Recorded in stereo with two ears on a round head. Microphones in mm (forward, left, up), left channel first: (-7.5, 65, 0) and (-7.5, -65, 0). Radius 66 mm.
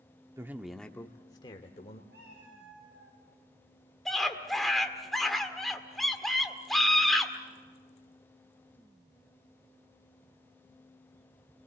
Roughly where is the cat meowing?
Right.